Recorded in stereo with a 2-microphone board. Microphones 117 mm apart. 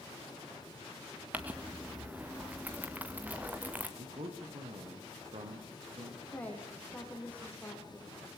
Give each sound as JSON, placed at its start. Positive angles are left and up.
{"t": 1.3, "sound": "crumpling", "side_deg": -15, "distance_m": 2.5}
{"t": 4.0, "sound": "a man speaking", "side_deg": -65, "distance_m": 5.0}
{"t": 6.3, "sound": "a woman speaking", "side_deg": 15, "distance_m": 4.5}